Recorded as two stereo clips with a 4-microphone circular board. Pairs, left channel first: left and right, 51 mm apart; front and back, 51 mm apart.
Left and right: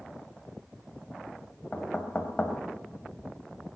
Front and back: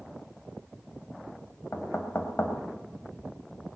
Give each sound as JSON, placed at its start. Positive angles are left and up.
{"t": 1.7, "sound": "knocking", "azimuth_deg": 35, "distance_m": 2.0}